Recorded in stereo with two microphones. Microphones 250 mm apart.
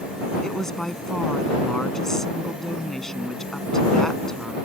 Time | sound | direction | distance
0.4 | a woman speaking | centre (ahead or behind) | ?